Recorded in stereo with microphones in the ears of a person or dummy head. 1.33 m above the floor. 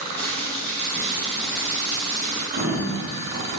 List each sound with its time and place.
0.2 s boiling: 10° left (ahead or behind), 1.3 m
2.5 s a sliding door: 40° right (ahead or behind), 0.6 m